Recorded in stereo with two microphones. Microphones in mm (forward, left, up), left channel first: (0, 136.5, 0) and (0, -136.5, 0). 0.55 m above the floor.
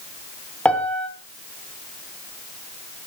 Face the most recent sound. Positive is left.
turn(degrees=5)  # may be behind; listen again after turning